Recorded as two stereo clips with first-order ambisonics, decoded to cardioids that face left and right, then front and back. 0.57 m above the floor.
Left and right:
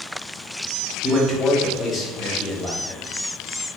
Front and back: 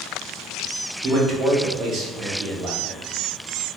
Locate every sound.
1.0 s a man speaking: 145° left, 0.8 m